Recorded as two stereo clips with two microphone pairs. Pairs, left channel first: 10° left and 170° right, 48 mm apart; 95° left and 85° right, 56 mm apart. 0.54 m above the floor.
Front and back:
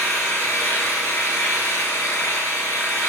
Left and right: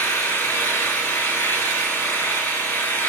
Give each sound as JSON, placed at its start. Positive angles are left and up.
{"t": 0.0, "sound": "an engine running", "azimuth_deg": 45, "distance_m": 2.5}